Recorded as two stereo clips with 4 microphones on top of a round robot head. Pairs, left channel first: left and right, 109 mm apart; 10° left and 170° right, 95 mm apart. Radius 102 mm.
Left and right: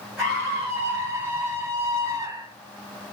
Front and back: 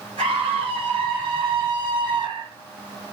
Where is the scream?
165° right, 2.5 m; by 2.5 s 140° right, 1.8 m.